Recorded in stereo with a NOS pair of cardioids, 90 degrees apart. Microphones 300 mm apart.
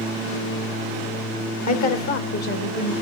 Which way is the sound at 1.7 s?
65° left.